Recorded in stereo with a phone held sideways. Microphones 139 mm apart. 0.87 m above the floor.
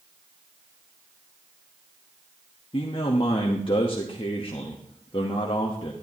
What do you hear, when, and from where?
2.7 s a man speaking: 40° left (ahead or behind), 1.0 m